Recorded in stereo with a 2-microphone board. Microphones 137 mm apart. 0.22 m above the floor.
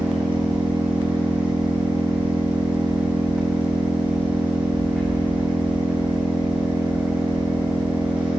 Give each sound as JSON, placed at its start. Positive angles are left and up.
{"t": 0.0, "sound": "an engine running", "side_deg": -10, "distance_m": 3.5}